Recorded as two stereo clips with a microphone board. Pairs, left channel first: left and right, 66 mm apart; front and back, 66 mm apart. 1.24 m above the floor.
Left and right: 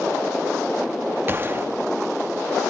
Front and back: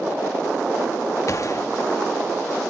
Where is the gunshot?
35° right, 1.2 m.